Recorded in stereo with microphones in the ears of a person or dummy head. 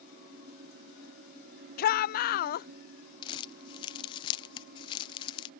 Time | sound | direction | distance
1.8 | a shout | 45° left (ahead or behind) | ?
3.2 | crumpling | 30° left (ahead or behind) | ?